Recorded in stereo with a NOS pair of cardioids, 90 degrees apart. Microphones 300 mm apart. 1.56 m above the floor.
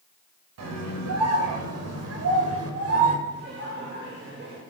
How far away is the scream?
About 8 m.